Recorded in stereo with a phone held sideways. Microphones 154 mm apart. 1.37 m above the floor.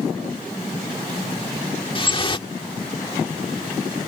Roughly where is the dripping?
Left.